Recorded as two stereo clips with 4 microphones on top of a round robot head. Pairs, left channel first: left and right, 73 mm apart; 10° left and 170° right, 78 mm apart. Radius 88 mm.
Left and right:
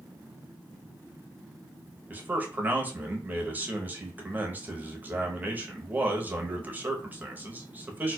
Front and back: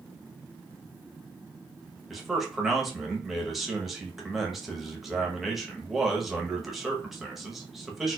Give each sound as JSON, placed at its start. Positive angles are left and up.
{"t": 2.1, "sound": "a man speaking", "azimuth_deg": -90, "distance_m": 1.0}